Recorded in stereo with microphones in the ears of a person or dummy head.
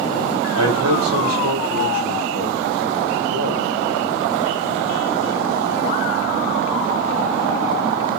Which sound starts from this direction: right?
A man speaking, at 0.6 s.